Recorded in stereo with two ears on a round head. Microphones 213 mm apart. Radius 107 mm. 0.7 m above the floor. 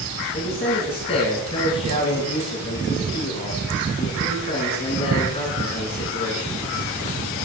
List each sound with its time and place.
0.3 s a man speaking: 25° left (ahead or behind), 7.5 m